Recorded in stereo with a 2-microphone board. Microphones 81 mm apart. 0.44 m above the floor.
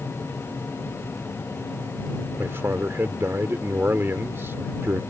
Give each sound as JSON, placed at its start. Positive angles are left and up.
{"t": 2.4, "sound": "a man speaking", "side_deg": -30}